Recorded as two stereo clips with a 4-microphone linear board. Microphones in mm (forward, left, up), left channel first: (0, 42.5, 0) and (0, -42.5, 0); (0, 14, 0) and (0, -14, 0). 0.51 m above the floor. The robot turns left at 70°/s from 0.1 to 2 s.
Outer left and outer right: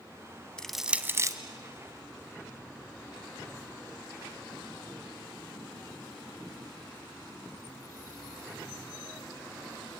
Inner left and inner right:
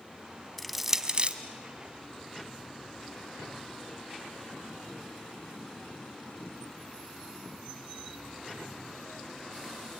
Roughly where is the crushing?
Centre.